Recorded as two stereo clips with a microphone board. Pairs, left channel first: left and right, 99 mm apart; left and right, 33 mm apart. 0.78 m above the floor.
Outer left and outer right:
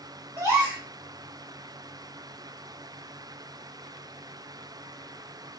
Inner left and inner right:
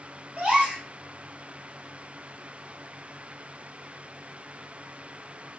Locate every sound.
0.4 s a gasp: 35° right (ahead or behind), 1.7 m